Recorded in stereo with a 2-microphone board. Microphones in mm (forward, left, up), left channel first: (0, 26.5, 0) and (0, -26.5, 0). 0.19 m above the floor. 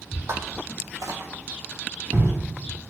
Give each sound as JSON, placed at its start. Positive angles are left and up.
{"t": 0.3, "sound": "footsteps", "side_deg": -65, "distance_m": 0.5}